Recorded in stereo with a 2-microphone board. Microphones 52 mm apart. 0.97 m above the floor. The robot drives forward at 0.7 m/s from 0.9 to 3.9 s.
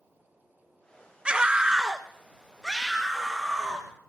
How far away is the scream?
About 0.5 m.